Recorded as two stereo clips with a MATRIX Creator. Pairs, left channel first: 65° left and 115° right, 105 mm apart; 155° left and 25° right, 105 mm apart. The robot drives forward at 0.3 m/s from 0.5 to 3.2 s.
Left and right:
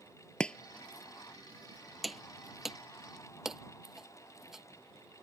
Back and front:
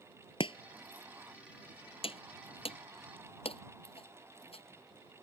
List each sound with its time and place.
0.4 s chopping: 145° left; by 4.6 s 160° left